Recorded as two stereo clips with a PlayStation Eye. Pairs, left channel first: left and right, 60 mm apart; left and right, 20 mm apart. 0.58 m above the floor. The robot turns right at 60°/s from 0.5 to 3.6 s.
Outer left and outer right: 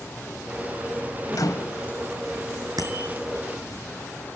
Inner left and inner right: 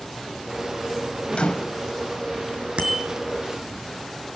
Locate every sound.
1.3 s a microwave: 80° left, 2 m; by 1.8 s 55° left (ahead or behind), 2 m
2.8 s a bicycle bell: 80° right, 6 m